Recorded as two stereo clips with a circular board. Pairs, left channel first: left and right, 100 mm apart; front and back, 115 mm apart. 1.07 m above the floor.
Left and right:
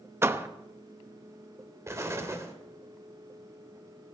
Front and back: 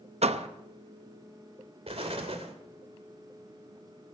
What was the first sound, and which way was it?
A door slam, 155° right.